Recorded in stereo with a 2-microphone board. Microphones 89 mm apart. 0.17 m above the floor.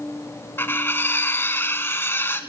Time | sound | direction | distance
0.6 | cutlery clinking | 25° left (ahead or behind) | 0.8 m